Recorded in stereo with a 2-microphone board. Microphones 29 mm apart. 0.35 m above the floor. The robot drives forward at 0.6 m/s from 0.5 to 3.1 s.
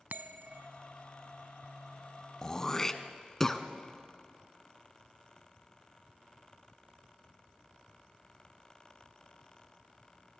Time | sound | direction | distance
0.1 | a bell | 70° right (ahead or behind) | 0.8 m
2.4 | throat clearing | 25° left (ahead or behind) | 0.6 m